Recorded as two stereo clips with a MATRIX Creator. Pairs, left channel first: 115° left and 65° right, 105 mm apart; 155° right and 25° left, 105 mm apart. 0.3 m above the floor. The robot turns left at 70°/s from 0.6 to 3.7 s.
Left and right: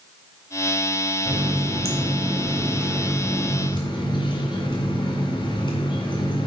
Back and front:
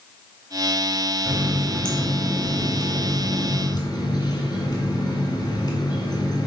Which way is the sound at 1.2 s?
35° right.